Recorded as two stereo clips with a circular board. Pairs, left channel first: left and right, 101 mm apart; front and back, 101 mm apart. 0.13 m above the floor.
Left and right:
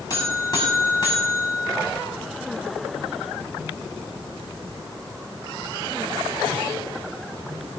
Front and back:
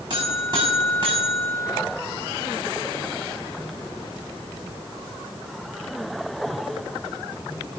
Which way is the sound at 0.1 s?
145° left.